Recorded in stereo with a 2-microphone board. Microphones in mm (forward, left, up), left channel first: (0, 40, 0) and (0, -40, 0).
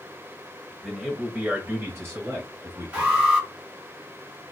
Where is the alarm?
20° right (ahead or behind), 2.0 m.